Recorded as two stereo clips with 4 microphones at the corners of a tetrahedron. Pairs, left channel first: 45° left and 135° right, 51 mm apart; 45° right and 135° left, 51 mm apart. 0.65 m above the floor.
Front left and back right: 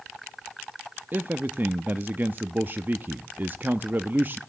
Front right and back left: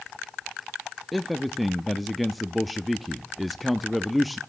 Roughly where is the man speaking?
Behind right.